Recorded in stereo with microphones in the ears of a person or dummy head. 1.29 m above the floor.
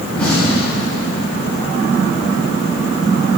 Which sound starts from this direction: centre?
An explosion, at 0.1 s.